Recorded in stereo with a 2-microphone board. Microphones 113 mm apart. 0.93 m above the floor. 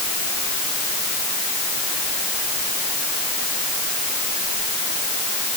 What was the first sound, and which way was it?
Only background noise.